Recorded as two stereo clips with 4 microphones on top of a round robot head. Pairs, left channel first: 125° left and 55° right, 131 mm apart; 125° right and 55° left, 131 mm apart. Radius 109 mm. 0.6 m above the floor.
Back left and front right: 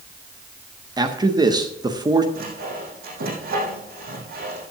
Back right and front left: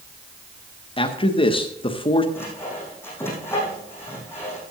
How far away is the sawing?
About 5 m.